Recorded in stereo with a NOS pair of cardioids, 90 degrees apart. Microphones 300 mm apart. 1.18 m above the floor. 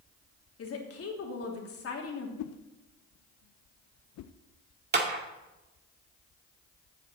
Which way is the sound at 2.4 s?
65° left.